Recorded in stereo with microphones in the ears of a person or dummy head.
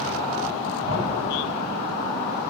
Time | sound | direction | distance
0.9 | a thud | 50° right (ahead or behind) | 2.5 m